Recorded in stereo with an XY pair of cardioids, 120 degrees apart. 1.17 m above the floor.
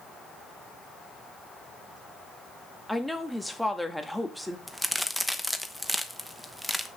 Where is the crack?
5° right, 1.0 m.